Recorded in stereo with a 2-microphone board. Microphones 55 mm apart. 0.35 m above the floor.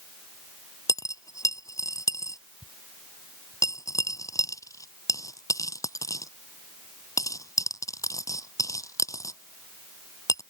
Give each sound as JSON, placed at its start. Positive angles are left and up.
{"t": 0.9, "sound": "a dropped coin", "side_deg": 80}